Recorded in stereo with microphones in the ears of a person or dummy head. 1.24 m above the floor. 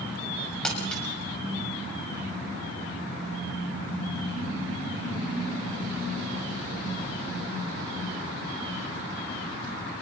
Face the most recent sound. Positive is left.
turn(degrees=10)  # may be behind; listen again after turning